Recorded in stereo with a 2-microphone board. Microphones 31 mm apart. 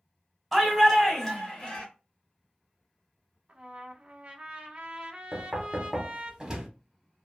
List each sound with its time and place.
0.5 s a shout: centre (ahead or behind), 1.2 m; by 1.9 s 20° left (ahead or behind), 1.3 m
3.5 s a trumpet: 35° right (ahead or behind), 0.5 m
5.3 s knocking: 20° right (ahead or behind), 0.7 m